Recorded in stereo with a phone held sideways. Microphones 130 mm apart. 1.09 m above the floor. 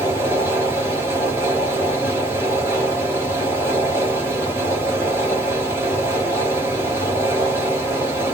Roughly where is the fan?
Centre.